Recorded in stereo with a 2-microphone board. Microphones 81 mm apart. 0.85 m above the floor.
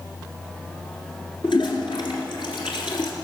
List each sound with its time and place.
1.4 s a toilet flushing: 70° left (ahead or behind), 2 m